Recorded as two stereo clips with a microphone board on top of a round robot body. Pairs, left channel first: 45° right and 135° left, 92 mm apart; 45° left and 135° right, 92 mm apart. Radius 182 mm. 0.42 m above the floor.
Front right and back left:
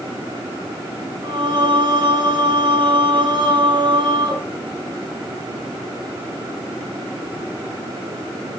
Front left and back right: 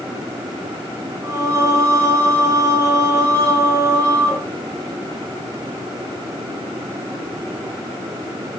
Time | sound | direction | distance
1.2 | singing | 170° left | 3 m